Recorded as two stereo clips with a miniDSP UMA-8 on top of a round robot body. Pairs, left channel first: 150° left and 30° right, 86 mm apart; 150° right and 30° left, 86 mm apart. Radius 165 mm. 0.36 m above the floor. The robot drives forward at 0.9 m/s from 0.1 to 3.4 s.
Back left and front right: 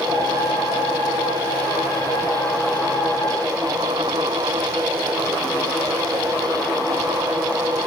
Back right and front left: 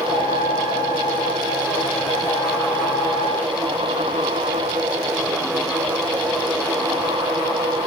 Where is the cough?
No cough in this recording.